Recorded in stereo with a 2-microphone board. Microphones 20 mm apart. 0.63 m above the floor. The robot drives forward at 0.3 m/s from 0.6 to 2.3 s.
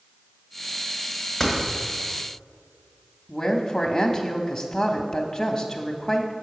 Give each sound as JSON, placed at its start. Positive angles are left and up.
{"t": 1.4, "sound": "a door slam", "side_deg": 20, "distance_m": 1.6}
{"t": 3.3, "sound": "a woman speaking", "side_deg": 35, "distance_m": 0.7}